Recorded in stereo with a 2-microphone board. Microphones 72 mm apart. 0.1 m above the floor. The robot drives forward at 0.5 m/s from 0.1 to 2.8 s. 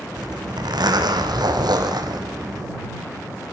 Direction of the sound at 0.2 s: 75° right (ahead or behind).